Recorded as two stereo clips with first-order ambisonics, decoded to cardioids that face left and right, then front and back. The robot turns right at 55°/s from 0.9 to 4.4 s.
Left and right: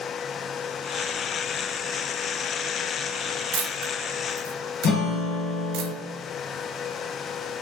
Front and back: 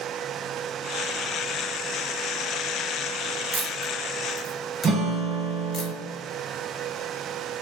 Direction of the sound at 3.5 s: 115° right.